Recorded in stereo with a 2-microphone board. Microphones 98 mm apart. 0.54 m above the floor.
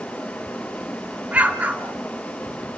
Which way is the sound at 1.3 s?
15° right (ahead or behind).